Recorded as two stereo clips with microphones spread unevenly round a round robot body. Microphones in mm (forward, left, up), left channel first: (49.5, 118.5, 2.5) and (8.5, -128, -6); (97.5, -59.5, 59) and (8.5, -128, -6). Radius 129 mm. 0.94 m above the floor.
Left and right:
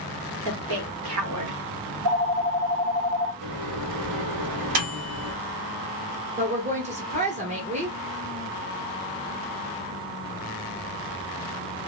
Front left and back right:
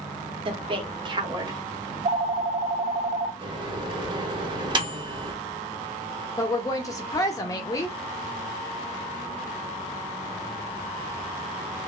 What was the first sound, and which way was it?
A woman speaking, 135° right.